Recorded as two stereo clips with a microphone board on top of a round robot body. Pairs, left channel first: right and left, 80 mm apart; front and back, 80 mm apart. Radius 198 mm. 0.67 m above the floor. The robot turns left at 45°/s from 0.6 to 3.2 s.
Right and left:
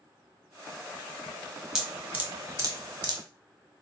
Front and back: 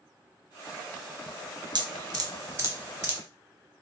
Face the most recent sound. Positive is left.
turn(degrees=105)